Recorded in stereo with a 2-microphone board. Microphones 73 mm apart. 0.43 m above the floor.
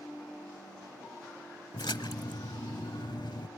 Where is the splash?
90° left, 0.7 m.